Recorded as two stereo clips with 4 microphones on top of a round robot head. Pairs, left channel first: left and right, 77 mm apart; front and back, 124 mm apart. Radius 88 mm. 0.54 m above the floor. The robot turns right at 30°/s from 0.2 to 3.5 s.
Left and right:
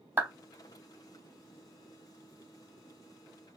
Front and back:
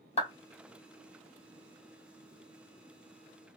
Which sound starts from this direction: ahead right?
A clap, at 0.2 s.